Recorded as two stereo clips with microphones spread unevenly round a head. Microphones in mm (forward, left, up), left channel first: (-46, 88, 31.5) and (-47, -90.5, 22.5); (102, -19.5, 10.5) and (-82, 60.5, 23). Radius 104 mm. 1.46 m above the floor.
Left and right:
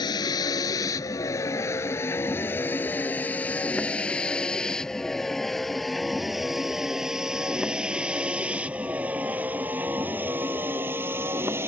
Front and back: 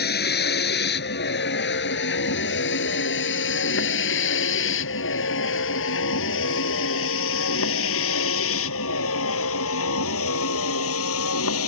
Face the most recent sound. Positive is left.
turn(degrees=-10)